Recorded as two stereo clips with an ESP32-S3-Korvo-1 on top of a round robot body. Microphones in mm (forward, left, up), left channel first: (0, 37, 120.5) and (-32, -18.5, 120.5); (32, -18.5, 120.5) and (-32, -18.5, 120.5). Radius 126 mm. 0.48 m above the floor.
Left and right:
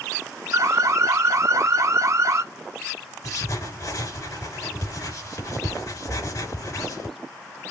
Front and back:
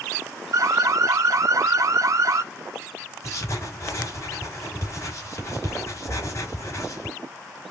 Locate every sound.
0.5 s an alarm: 155° right, 0.9 m
3.2 s writing: 35° left, 3 m
6.1 s a splash: 20° left, 3 m